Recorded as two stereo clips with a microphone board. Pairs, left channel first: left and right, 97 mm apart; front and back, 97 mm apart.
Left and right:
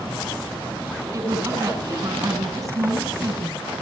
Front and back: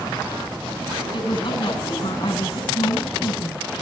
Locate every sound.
1.1 s a woman speaking: 35° right, 9.5 m